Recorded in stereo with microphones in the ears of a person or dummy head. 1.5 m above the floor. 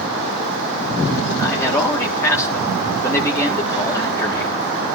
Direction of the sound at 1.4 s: 10° left (ahead or behind).